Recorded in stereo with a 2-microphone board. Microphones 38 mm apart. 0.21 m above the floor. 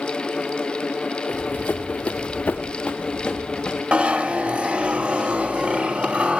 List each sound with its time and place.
1.3 s running footsteps: 60° left (ahead or behind), 1.3 m; by 3.8 s 15° left (ahead or behind), 2 m
3.9 s a zipper: 35° right (ahead or behind), 0.6 m